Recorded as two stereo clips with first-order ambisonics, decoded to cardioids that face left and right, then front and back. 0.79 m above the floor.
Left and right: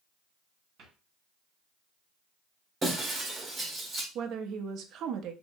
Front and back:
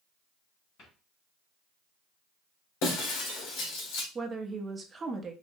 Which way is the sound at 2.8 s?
15° right.